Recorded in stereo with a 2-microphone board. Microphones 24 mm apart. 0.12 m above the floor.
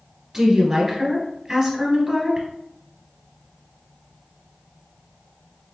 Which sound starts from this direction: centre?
A woman speaking, at 0.3 s.